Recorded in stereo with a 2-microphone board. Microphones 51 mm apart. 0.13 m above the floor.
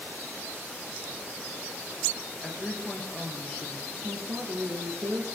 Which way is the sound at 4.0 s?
55° right (ahead or behind).